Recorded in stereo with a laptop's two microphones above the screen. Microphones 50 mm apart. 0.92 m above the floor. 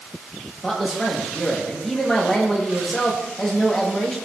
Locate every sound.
0.6 s a man speaking: 10° left (ahead or behind), 1.3 m